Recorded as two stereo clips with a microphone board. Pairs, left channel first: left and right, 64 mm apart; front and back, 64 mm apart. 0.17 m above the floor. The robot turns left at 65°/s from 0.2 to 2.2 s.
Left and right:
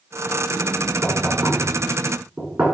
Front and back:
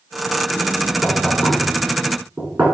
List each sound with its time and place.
1.0 s knocking: 50° right, 1.3 m; by 2.6 s 125° right, 1.3 m